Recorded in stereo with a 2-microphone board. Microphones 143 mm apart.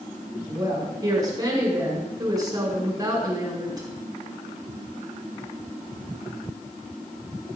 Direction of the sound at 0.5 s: 25° right (ahead or behind).